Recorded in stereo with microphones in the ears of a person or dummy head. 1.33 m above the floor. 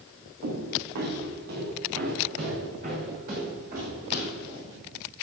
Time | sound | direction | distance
0.4 | footsteps | 65° right (ahead or behind) | 3.5 m